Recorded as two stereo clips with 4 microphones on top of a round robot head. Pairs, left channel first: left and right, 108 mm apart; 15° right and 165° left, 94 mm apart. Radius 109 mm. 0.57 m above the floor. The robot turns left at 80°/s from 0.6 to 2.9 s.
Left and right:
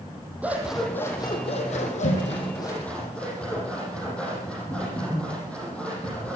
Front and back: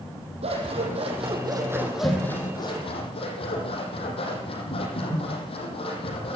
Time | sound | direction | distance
0.4 | scissors | 165° right | 8 m